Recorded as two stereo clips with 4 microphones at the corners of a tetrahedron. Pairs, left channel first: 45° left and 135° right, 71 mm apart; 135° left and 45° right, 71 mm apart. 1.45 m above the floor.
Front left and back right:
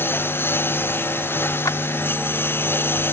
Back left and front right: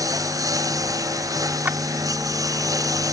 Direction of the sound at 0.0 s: 10° right.